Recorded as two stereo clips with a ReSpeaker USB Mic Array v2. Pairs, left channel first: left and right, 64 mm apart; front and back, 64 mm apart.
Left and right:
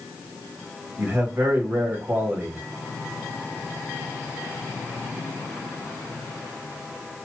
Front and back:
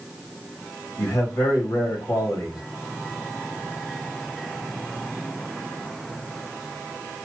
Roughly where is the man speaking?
Ahead right.